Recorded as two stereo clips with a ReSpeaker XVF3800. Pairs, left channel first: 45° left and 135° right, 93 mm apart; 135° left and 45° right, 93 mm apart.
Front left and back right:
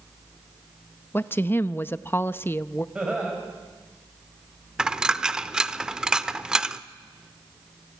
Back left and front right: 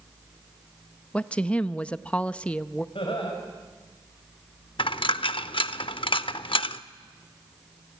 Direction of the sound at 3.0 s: 150° left.